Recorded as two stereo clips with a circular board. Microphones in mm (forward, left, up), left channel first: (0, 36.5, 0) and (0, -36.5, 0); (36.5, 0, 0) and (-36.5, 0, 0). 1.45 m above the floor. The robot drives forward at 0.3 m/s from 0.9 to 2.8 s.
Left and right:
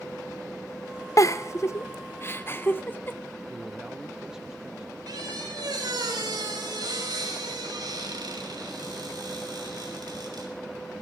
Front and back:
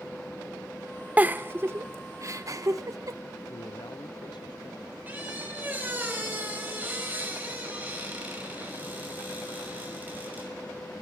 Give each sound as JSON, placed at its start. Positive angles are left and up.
{"t": 1.2, "sound": "a giggle", "azimuth_deg": 120, "distance_m": 0.6}
{"t": 3.5, "sound": "a man speaking", "azimuth_deg": -10, "distance_m": 0.6}
{"t": 5.1, "sound": "a squeak", "azimuth_deg": -115, "distance_m": 5.5}